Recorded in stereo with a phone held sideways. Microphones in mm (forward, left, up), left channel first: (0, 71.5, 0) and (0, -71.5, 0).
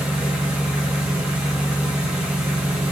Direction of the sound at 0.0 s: 10° right (ahead or behind).